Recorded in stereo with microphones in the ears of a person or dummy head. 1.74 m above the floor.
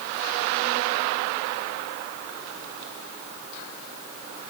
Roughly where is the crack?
No crack in this recording.